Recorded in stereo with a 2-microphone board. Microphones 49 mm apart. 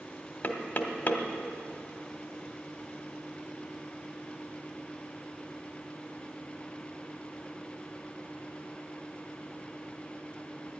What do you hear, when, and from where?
0.4 s knocking: 45° left (ahead or behind), 1.1 m